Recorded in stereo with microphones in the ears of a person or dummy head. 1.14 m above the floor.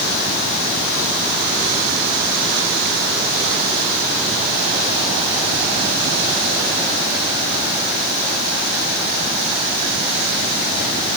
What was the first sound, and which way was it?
Only background noise.